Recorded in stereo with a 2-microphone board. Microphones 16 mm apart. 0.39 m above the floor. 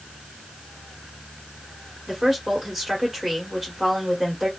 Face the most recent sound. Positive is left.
turn(degrees=-15)  # may be behind; listen again after turning